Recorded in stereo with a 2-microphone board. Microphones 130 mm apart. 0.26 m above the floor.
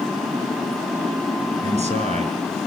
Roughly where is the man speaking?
Right.